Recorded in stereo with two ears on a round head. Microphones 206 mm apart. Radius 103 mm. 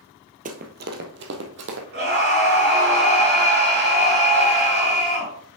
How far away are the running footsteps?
About 1.0 m.